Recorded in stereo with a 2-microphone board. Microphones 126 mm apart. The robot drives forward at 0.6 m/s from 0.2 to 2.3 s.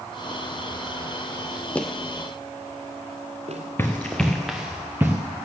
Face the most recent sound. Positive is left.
turn(degrees=-15)  # may be behind; listen again after turning